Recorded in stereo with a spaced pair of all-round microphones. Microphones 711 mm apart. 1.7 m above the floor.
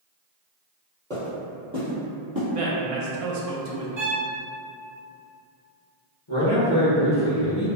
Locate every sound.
1.1 s footsteps: 5° left (ahead or behind), 1.8 m; by 2.4 s 15° right (ahead or behind), 2.5 m
2.5 s a man speaking: 55° right (ahead or behind), 0.6 m
4.0 s a violin: 25° right (ahead or behind), 0.8 m
6.3 s a man speaking: 35° left (ahead or behind), 1.4 m